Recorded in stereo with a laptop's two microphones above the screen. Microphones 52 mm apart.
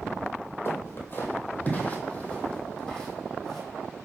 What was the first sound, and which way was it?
Footsteps, 50° left (ahead or behind).